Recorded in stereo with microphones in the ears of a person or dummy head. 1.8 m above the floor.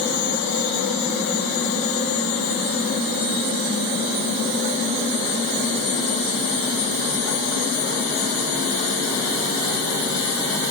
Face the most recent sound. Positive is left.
No sound to turn to.